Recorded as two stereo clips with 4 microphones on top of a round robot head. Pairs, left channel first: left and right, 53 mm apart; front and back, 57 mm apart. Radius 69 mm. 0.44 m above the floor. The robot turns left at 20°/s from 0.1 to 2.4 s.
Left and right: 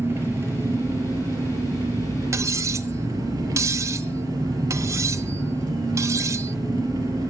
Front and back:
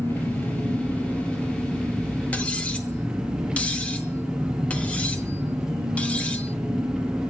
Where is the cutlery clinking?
65° right, 1.2 m.